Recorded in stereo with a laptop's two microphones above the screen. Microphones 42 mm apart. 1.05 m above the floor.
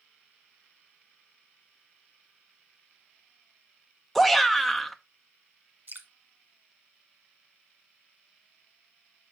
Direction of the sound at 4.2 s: Centre (ahead or behind).